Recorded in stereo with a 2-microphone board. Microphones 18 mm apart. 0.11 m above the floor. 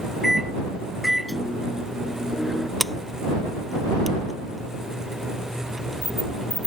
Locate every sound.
0.2 s a microwave: centre (ahead or behind)
2.8 s a sliding door: 10° left (ahead or behind)